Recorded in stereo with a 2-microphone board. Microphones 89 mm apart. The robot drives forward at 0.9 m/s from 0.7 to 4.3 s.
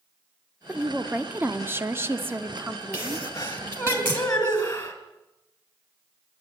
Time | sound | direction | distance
0.7 | a woman speaking | 15° right (ahead or behind) | 1.4 m
2.9 | a sneeze | 30° left (ahead or behind) | 2 m